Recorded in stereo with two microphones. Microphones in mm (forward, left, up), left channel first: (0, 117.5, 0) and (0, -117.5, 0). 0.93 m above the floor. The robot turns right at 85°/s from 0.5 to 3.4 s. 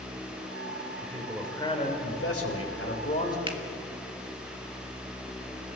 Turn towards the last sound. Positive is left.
turn(degrees=-20)  # may be behind; listen again after turning